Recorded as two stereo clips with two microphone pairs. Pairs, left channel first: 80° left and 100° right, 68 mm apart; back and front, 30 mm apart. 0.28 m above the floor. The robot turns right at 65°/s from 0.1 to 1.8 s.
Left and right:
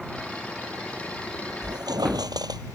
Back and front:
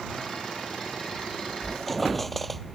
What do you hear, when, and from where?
1.6 s a squeak: 105° right; by 2.8 s 95° right